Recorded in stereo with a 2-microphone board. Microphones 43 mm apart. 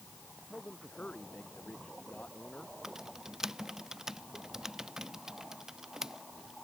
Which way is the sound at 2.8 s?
10° right (ahead or behind).